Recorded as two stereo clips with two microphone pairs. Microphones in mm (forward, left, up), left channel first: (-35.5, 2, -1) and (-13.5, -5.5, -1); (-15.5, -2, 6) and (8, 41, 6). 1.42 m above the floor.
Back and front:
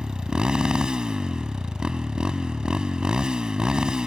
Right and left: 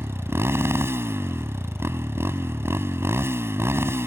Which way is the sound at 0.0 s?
35° left.